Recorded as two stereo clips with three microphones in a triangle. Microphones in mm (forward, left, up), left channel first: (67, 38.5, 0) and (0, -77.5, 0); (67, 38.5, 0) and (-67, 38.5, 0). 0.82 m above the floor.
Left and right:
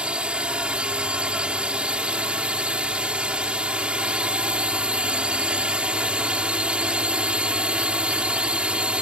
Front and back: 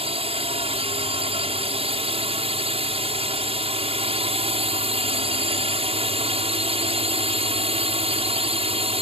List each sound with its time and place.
0.0 s a drone: 160° left